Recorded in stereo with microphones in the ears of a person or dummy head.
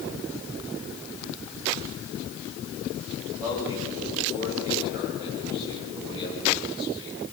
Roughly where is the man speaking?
Centre.